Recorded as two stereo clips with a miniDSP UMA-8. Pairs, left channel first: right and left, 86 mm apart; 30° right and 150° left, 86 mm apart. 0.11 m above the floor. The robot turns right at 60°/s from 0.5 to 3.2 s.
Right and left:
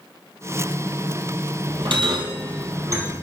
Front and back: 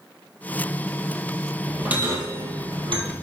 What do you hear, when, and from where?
1.7 s a bell: 65° left, 2 m; by 3.1 s 155° left, 2 m